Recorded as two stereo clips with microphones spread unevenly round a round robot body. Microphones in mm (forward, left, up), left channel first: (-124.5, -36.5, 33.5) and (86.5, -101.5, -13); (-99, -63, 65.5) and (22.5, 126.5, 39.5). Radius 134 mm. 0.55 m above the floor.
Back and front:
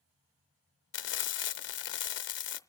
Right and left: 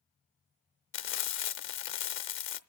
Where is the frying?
160° right, 0.7 m.